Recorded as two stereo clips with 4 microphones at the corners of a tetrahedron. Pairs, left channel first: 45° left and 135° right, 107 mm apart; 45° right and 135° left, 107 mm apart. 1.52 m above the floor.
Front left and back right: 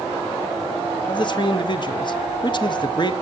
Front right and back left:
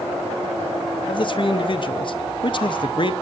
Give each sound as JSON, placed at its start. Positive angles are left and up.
{"t": 1.1, "sound": "a man speaking", "azimuth_deg": 0, "distance_m": 1.0}